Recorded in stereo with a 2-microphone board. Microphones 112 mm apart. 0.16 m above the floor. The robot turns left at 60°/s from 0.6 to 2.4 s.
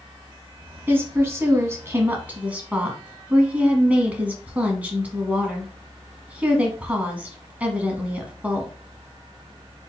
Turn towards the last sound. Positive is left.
turn(degrees=-15)  # may be behind; listen again after turning